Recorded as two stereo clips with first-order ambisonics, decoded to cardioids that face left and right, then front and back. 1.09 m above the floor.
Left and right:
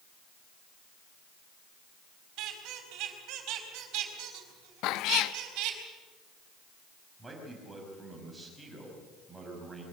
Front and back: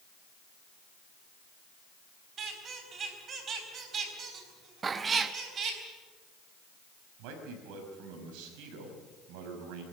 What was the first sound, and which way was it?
A squeak, 120° right.